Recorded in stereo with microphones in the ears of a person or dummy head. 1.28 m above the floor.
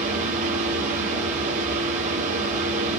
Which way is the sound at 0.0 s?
45° right (ahead or behind).